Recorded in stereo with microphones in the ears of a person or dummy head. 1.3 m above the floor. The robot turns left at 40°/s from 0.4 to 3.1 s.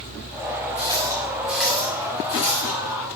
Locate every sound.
0.8 s a running tap: 40° right (ahead or behind), 2.0 m; by 2.8 s 35° left (ahead or behind), 2.0 m